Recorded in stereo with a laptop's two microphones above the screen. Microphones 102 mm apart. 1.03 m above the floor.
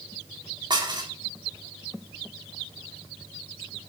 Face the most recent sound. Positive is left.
turn(degrees=-45)  # may be behind; listen again after turning